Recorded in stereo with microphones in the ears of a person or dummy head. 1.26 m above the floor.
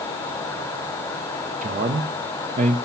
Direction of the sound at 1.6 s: 40° right (ahead or behind).